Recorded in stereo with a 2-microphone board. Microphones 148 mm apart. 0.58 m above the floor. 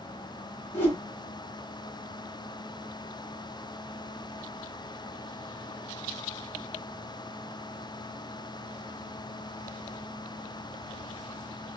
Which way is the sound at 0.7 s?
15° left (ahead or behind).